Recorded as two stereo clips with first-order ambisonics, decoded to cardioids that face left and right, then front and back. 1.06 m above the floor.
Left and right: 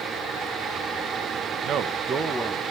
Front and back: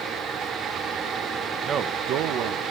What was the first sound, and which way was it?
A man speaking, 125° right.